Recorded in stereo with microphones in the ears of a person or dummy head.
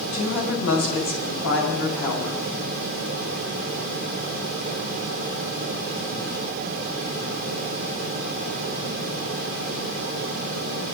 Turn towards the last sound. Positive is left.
turn(degrees=70)  # may be behind; listen again after turning